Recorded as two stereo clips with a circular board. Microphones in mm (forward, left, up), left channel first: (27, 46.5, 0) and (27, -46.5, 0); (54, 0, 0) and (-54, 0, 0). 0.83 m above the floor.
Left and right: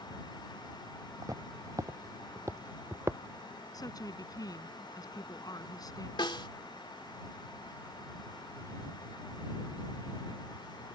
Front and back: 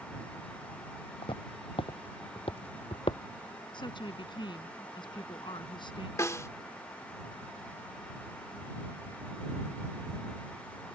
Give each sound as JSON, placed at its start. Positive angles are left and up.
{"t": 1.2, "sound": "footsteps", "azimuth_deg": -35}
{"t": 3.7, "sound": "a woman speaking", "azimuth_deg": 45}
{"t": 6.2, "sound": "a snare drum", "azimuth_deg": 60}